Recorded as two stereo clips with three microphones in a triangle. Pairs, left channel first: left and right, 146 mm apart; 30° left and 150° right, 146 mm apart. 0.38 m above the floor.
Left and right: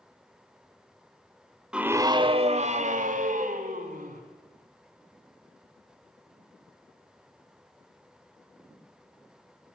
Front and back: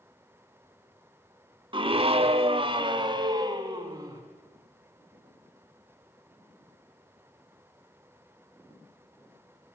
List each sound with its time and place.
1.7 s a scream: 170° right, 1.3 m; by 4.2 s 85° right, 4 m